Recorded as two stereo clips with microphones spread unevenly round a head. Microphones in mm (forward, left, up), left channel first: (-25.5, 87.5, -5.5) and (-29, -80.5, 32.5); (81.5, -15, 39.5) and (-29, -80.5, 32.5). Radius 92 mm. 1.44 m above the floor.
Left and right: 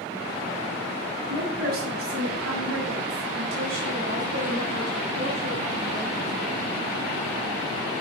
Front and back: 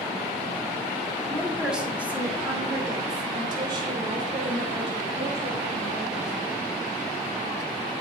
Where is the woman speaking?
60° right, 3 m; by 6.3 s 120° right, 5 m.